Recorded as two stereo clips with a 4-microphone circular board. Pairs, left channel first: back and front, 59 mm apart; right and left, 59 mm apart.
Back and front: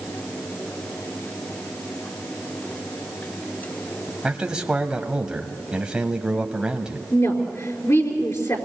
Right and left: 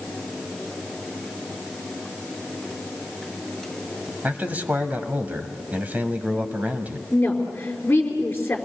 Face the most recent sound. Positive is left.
turn(degrees=-150)